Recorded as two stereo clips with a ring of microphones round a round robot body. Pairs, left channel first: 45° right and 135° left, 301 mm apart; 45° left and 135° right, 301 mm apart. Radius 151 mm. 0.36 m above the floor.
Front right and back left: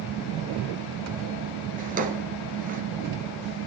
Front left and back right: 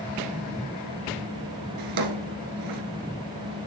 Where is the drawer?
160° right, 2 m.